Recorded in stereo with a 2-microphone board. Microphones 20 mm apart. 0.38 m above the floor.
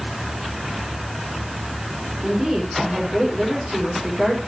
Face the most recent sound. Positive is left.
turn(degrees=-20)  # may be behind; listen again after turning